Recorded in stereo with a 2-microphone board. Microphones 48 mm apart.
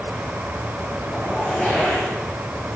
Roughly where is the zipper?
Centre.